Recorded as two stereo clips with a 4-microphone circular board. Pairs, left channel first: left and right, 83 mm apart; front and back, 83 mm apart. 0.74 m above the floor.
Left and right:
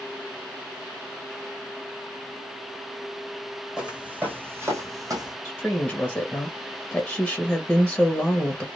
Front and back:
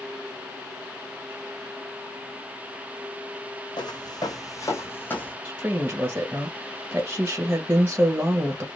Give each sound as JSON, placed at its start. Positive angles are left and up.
{"t": 3.8, "sound": "footsteps", "azimuth_deg": -10, "distance_m": 1.5}
{"t": 5.5, "sound": "a woman speaking", "azimuth_deg": 155, "distance_m": 1.0}